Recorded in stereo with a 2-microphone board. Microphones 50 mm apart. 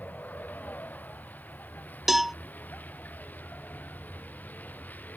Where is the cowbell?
5° right (ahead or behind).